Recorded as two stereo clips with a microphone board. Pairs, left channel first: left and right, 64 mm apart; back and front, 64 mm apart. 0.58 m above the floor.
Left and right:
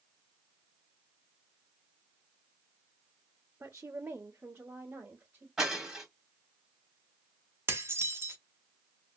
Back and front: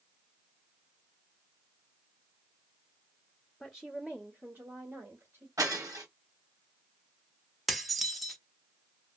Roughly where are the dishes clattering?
Right.